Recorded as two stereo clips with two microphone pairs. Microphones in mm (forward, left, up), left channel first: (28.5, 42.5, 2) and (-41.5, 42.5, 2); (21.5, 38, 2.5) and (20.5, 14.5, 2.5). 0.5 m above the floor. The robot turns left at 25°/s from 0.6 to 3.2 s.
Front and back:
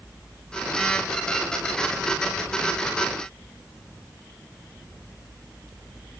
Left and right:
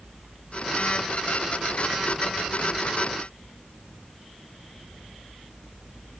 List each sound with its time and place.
Only background noise.